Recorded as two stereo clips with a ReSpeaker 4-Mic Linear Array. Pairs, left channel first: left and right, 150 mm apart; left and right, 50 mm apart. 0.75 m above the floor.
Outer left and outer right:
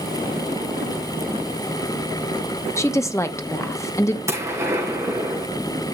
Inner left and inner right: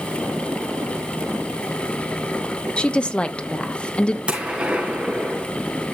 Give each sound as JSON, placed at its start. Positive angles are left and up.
{"t": 2.8, "sound": "a woman speaking", "side_deg": 20, "distance_m": 0.8}
{"t": 4.3, "sound": "a gunshot", "side_deg": -20, "distance_m": 4.5}